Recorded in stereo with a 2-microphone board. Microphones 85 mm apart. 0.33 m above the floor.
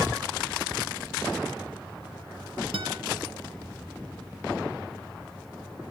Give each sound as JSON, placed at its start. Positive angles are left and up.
{"t": 2.7, "sound": "a guitar", "side_deg": -80, "distance_m": 2.0}